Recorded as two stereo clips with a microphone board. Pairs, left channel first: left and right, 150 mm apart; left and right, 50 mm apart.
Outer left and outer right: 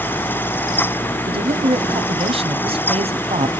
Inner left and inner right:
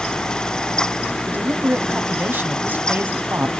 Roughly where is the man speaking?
Right.